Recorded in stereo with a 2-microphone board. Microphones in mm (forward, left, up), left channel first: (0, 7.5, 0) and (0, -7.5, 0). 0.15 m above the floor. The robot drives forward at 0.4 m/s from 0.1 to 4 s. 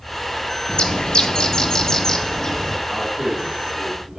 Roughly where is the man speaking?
Right.